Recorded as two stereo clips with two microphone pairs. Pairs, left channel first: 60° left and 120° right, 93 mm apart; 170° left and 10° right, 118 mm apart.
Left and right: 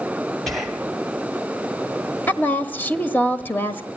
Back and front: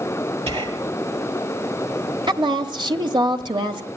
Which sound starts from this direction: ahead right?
Whispering, at 0.5 s.